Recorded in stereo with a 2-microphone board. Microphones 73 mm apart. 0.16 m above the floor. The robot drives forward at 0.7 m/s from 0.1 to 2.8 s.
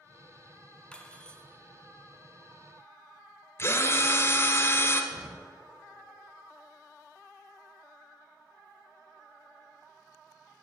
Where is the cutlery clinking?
10° left (ahead or behind), 0.8 m.